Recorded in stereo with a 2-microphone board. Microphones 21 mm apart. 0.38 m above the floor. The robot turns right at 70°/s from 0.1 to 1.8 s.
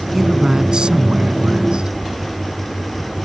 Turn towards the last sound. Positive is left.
turn(degrees=-60)